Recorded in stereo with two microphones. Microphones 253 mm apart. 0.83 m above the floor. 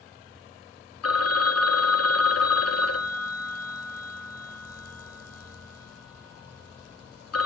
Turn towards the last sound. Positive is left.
turn(degrees=70)  # may be behind; listen again after turning